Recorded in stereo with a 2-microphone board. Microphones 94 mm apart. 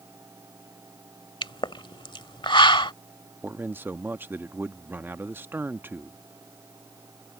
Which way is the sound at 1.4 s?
60° left (ahead or behind).